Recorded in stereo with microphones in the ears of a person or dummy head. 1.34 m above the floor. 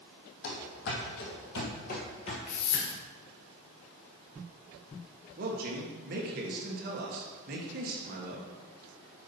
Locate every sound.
0.4 s running footsteps: 60° left (ahead or behind), 2.5 m; by 2.4 s 30° left (ahead or behind), 1.7 m
2.5 s a whoosh: 45° left (ahead or behind), 1.9 m
5.4 s a man speaking: 50° right (ahead or behind), 1.4 m